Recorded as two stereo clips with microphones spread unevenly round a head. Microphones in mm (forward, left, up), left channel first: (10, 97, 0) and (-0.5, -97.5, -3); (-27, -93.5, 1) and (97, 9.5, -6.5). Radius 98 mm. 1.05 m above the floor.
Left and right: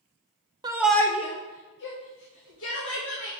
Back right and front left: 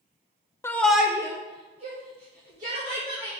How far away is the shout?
About 0.6 m.